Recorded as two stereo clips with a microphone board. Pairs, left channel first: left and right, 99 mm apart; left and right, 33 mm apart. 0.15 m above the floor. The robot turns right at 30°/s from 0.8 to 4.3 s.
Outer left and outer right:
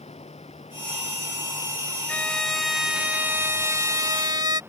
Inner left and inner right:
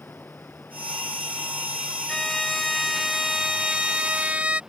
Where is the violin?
165° left; by 4.6 s 130° right.